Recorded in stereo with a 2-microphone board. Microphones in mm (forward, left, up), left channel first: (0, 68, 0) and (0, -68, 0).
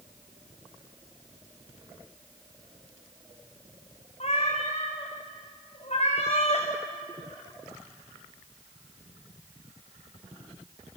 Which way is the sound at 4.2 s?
55° left (ahead or behind).